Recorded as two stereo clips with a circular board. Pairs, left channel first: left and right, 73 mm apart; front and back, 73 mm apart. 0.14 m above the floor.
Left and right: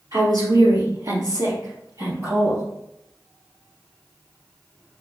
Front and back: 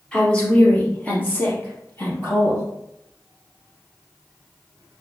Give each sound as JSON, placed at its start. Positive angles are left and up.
{"t": 0.1, "sound": "a woman speaking", "azimuth_deg": -80, "distance_m": 2.5}